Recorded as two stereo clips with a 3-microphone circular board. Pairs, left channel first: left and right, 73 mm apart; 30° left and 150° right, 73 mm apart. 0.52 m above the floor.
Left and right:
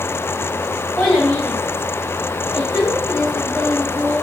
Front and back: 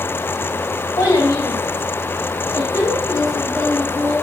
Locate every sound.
1.0 s a child speaking: 5° left, 1.8 m; by 4.1 s 15° left, 3.5 m